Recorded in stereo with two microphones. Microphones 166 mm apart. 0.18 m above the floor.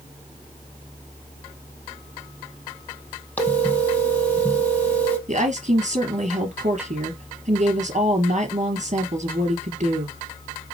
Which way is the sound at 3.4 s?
10° left (ahead or behind).